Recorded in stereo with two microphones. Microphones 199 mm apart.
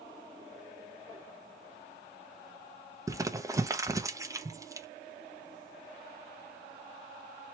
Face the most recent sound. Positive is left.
turn(degrees=-15)  # may be behind; listen again after turning